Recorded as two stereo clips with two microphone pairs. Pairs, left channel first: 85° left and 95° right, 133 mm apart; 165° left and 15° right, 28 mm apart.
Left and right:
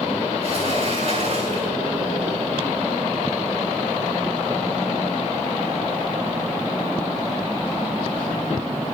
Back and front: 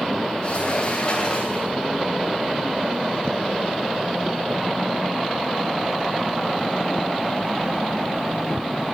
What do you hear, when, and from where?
0.4 s a sliding door: 135° right, 7.5 m